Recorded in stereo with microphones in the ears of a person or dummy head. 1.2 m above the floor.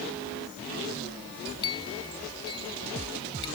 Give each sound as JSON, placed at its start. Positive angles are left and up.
{"t": 1.6, "sound": "a clink", "side_deg": 25}